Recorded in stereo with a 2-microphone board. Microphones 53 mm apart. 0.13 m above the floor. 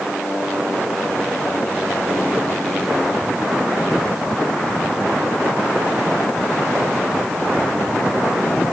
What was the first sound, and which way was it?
Only background noise.